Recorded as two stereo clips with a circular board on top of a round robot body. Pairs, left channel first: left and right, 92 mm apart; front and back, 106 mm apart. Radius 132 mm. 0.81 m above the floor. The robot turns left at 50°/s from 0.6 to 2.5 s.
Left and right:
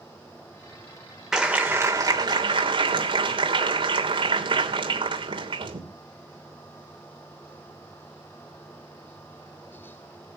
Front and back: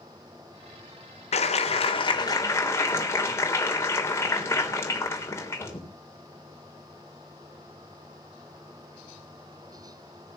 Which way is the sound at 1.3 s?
5° right.